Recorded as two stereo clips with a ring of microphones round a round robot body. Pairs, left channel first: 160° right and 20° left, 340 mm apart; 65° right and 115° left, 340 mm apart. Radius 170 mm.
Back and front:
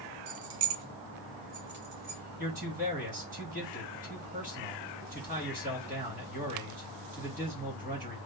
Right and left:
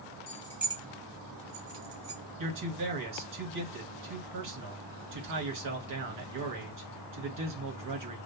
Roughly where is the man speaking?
Left.